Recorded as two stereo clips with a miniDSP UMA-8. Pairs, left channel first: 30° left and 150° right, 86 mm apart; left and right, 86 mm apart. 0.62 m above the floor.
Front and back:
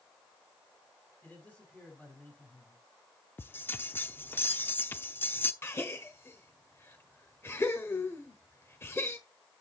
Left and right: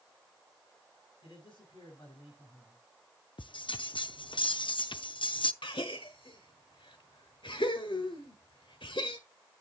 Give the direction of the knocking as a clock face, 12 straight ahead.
No knocking in this recording.